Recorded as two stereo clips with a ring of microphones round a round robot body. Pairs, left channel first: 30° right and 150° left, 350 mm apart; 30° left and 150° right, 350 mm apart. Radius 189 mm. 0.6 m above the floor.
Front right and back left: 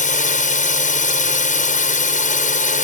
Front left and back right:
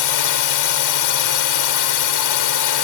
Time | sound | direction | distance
0.0 | a drone | 35° left | ?